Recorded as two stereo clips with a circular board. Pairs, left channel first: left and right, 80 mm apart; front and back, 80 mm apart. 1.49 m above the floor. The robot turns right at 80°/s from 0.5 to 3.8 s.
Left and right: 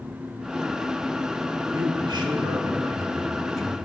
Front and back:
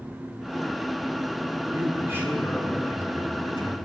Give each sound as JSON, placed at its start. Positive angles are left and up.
{"t": 1.7, "sound": "a man speaking", "azimuth_deg": -150, "distance_m": 3.0}